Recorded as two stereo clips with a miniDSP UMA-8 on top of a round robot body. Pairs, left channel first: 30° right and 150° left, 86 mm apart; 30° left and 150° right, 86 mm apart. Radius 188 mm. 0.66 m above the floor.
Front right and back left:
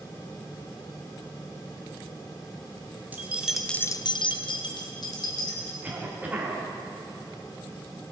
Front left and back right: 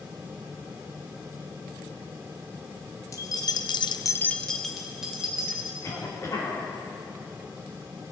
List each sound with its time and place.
3.1 s keys jangling: 80° left, 1.4 m; by 5.7 s 70° right, 3 m
5.8 s a cough: 80° left, 2.5 m